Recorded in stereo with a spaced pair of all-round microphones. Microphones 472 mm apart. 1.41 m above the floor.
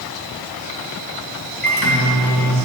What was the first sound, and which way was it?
A microwave, 45° left (ahead or behind).